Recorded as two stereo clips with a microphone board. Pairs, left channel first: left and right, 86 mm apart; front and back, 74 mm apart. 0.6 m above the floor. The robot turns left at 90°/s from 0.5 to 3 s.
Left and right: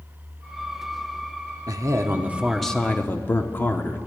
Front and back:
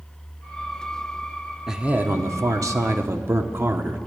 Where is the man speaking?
95° right, 1.0 m; by 4.0 s 145° left, 1.0 m.